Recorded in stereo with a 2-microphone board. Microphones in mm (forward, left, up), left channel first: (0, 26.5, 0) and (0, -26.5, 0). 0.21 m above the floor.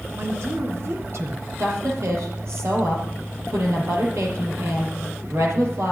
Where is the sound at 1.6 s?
65° right (ahead or behind), 5 m.